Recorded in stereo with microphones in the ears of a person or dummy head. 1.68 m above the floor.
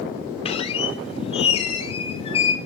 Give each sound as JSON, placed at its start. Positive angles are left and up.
{"t": 0.5, "sound": "a squeak", "side_deg": 35, "distance_m": 1.6}